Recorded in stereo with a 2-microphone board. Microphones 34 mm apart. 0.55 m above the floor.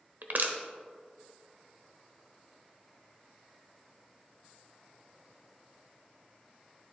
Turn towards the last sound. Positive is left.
turn(degrees=-65)  # may be behind; listen again after turning